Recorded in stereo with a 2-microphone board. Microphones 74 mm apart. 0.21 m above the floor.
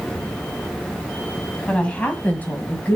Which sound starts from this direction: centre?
A woman speaking, at 1.7 s.